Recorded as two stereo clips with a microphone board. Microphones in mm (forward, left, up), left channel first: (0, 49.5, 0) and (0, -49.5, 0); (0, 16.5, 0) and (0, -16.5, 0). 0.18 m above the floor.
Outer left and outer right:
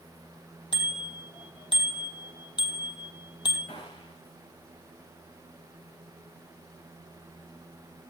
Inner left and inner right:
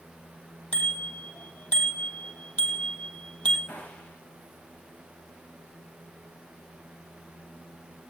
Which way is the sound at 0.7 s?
50° left (ahead or behind).